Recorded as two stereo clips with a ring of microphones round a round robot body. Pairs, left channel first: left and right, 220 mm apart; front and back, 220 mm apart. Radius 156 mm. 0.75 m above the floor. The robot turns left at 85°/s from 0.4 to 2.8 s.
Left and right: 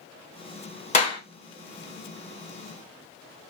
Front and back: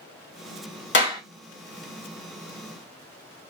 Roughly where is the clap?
Ahead left.